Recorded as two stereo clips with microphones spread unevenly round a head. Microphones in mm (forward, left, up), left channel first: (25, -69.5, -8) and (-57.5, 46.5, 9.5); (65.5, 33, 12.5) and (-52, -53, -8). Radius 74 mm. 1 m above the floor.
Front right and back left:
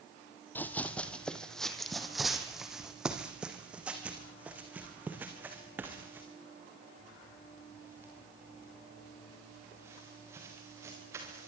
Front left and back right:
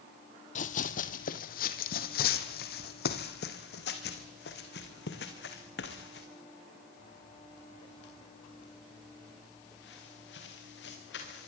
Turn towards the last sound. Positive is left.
turn(degrees=50)